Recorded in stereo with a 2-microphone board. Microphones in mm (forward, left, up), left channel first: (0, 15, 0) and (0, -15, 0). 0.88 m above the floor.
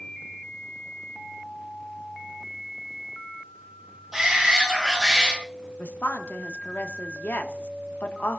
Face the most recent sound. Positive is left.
turn(degrees=75)  # may be behind; listen again after turning